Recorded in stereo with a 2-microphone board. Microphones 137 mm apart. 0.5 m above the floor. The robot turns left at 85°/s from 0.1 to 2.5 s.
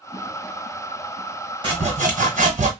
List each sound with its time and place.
1.6 s sawing: 40° right, 1.3 m; by 2.7 s 115° right, 1.3 m